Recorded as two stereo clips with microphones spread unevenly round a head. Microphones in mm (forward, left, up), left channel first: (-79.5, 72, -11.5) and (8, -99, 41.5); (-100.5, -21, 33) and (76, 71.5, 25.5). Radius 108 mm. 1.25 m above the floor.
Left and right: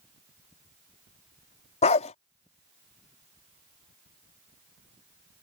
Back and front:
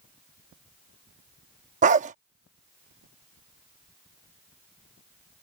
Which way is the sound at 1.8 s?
50° left.